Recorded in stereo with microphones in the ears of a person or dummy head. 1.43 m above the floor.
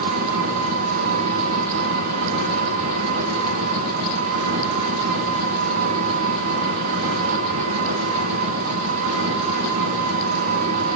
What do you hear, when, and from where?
0.0 s an engine running: 45° right (ahead or behind), 5 m